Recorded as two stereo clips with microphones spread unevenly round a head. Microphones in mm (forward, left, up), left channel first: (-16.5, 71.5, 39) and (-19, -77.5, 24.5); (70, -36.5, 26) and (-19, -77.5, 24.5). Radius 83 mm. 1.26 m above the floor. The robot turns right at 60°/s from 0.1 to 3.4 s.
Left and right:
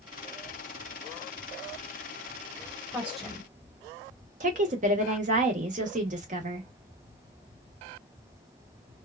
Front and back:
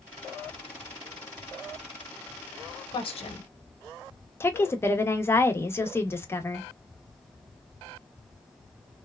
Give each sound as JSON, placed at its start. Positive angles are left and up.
{"t": 2.9, "sound": "a woman speaking", "azimuth_deg": -15, "distance_m": 1.0}
{"t": 4.4, "sound": "a woman speaking", "azimuth_deg": -40, "distance_m": 0.9}